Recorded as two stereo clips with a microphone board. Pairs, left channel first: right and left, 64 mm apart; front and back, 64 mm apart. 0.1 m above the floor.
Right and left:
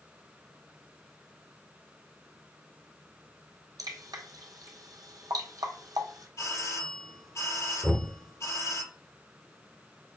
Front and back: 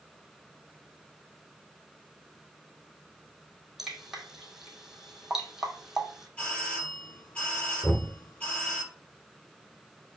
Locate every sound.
3.8 s dripping: 95° left, 1.7 m
6.4 s a doorbell: 70° right, 3.5 m
7.8 s knocking: 15° left, 1.4 m